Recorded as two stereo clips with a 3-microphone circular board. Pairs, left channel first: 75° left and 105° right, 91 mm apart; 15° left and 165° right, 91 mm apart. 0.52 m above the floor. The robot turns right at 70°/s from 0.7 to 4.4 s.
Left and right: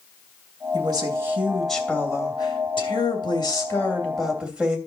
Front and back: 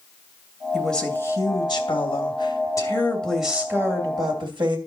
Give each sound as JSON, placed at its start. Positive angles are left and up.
{"t": 0.7, "sound": "a woman speaking", "azimuth_deg": -75, "distance_m": 2.5}